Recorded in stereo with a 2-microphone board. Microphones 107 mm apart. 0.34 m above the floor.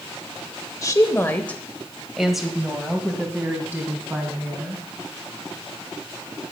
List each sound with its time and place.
0.8 s a woman speaking: 30° left (ahead or behind), 1.0 m; by 4.8 s 20° right (ahead or behind), 3 m